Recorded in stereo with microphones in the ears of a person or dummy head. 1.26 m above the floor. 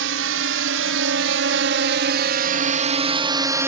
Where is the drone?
75° right (ahead or behind); by 3.7 s 15° right (ahead or behind).